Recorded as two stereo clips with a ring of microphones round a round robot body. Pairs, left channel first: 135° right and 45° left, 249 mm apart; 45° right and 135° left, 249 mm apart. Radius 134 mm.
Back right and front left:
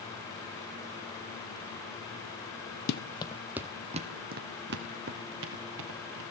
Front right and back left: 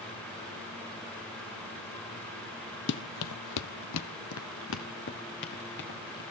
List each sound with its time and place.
2.9 s running footsteps: 90° right, 0.7 m; by 6.2 s 5° left, 2.5 m